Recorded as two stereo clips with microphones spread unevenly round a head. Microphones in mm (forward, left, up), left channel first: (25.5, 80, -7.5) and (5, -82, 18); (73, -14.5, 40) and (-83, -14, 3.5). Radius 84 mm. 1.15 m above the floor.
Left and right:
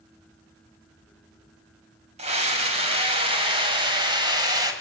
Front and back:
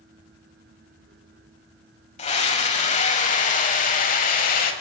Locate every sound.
2.2 s a scream: 50° right, 6 m; by 4.7 s 30° right, 5.5 m